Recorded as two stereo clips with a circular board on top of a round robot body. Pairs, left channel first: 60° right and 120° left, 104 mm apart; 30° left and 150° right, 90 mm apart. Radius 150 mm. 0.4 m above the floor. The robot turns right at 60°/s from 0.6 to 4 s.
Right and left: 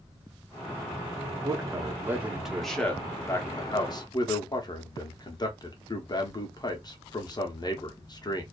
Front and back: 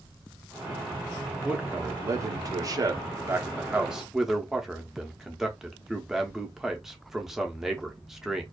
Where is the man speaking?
140° left, 0.9 m; by 8.4 s 65° right, 0.9 m.